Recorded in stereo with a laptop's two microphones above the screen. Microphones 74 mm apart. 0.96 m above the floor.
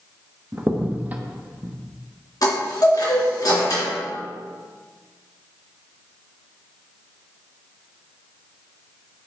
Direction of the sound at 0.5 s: 25° right (ahead or behind).